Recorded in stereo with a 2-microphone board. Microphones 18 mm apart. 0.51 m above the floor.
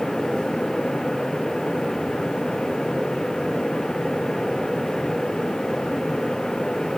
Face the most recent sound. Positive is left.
No sound to turn to.